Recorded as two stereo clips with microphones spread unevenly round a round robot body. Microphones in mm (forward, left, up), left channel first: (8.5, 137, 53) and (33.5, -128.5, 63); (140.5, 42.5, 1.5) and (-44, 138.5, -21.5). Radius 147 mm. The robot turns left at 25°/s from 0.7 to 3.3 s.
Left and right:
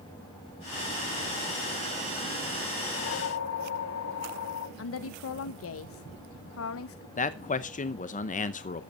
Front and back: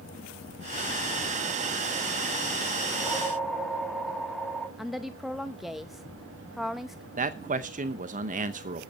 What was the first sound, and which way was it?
A whoosh, 70° left.